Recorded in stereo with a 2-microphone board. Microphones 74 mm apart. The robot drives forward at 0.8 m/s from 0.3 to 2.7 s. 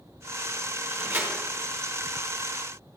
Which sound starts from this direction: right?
A door slam, at 0.9 s.